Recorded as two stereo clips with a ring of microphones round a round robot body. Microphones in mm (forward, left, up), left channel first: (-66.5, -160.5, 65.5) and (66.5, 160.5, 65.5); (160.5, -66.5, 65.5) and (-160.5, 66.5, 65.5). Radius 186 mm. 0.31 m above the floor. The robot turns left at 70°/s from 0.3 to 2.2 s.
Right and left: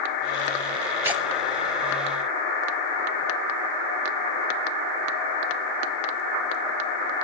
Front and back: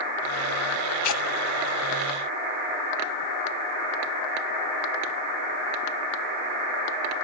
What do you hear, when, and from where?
1.0 s tearing paper: 10° right, 1.4 m; by 1.2 s 25° right, 1.4 m